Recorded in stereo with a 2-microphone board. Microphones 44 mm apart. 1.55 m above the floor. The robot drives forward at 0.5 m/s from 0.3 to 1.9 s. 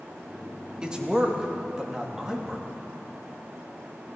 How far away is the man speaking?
About 1.8 m.